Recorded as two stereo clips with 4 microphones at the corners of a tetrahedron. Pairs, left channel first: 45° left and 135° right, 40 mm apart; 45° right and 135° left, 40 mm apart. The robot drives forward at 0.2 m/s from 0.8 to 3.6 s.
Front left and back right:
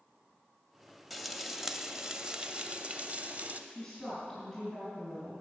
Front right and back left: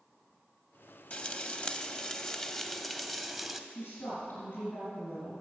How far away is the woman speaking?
About 3 m.